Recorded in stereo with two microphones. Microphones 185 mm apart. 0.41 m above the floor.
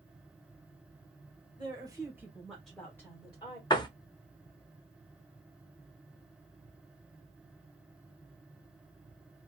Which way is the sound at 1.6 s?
25° right (ahead or behind).